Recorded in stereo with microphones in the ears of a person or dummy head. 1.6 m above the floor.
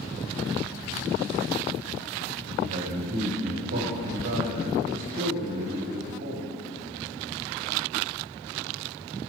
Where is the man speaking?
55° right (ahead or behind), 2 m.